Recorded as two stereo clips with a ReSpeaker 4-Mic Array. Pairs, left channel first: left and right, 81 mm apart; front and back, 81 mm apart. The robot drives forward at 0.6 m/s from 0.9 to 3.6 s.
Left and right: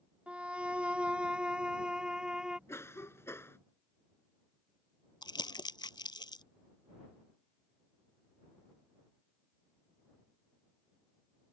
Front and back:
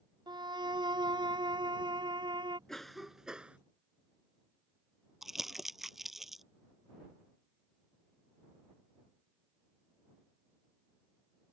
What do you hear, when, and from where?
0.3 s a violin: 165° right; by 2.6 s 170° right
2.7 s a cough: 80° left; by 3.6 s 115° left
5.2 s crumpling: 95° left